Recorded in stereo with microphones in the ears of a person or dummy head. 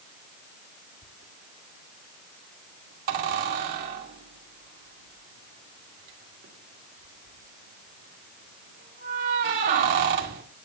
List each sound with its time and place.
1.0 s a squeak: 50° right (ahead or behind), 2 m